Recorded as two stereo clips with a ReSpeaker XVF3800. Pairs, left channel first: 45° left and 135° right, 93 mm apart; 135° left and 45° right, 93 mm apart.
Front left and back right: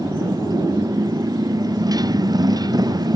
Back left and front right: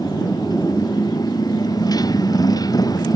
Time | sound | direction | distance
0.0 | a motorcycle | 175° left | ?